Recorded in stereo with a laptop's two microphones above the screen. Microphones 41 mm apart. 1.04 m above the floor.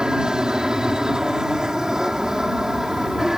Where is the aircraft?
20° right (ahead or behind); by 3.4 s 10° right (ahead or behind).